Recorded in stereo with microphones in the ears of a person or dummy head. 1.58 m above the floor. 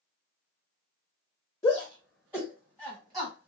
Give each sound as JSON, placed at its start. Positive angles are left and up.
{"t": 1.6, "sound": "a shout", "side_deg": 10, "distance_m": 0.6}